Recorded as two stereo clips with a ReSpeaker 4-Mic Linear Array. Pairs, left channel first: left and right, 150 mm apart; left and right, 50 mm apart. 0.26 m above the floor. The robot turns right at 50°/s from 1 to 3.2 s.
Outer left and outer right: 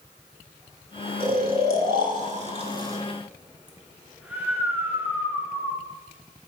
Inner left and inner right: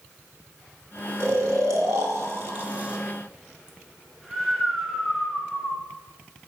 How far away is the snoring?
About 0.7 m.